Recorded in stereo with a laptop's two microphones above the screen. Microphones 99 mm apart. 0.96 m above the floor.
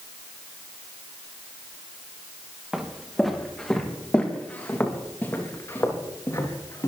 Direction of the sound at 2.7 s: 5° right (ahead or behind).